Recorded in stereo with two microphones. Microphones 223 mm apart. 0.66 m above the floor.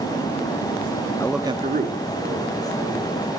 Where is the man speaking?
15° left (ahead or behind), 0.6 m; by 3.3 s 65° right (ahead or behind), 3 m.